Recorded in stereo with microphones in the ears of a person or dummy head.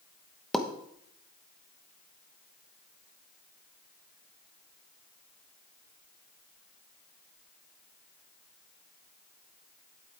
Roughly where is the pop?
Centre.